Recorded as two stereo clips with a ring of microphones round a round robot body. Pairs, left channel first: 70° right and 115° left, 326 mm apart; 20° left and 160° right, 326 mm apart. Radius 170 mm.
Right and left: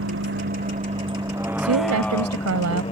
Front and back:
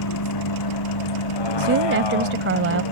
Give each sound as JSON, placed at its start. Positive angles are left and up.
{"t": 0.0, "sound": "a vehicle", "azimuth_deg": 60}
{"t": 1.6, "sound": "a woman speaking", "azimuth_deg": 150}